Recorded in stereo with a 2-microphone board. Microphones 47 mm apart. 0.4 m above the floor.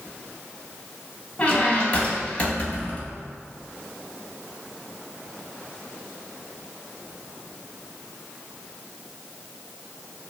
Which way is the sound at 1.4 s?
30° left (ahead or behind).